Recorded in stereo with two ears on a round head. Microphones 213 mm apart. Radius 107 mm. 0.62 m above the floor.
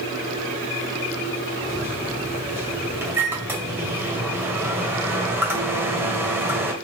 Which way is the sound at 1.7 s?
10° right (ahead or behind).